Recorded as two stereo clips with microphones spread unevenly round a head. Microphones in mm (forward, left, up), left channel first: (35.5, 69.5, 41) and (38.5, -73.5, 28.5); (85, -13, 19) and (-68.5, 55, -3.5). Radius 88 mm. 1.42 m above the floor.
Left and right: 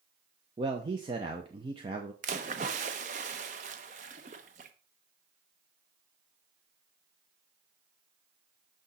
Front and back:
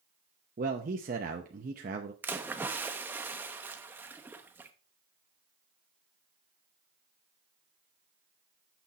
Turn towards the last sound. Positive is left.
turn(degrees=-120)